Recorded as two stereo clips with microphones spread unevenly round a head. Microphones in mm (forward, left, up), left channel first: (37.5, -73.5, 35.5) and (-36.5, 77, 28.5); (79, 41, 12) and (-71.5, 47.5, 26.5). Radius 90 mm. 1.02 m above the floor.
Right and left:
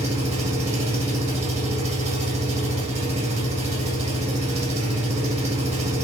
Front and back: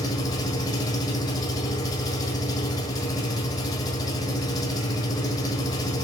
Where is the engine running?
65° left, 1.8 m.